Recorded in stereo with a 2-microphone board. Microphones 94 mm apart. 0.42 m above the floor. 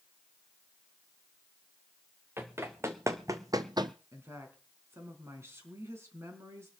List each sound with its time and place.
2.4 s running footsteps: 25° right (ahead or behind), 2.0 m; by 3.9 s 50° right (ahead or behind), 0.7 m
4.1 s a woman speaking: 25° right (ahead or behind), 4 m